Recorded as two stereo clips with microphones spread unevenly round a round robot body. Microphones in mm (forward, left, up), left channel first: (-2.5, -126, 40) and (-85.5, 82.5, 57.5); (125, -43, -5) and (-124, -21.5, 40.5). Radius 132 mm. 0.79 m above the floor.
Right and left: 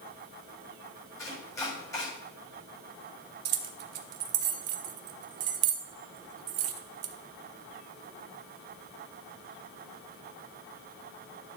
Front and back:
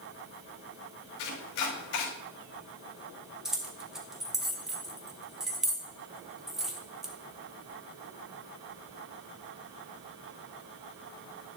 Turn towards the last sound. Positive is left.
turn(degrees=85)